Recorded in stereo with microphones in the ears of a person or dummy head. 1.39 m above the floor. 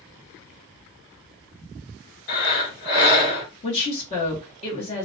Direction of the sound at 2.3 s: 50° left (ahead or behind).